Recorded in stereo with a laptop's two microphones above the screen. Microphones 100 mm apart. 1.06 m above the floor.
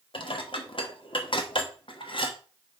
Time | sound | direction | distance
0.1 | dishes clattering | 60° left (ahead or behind) | 1.1 m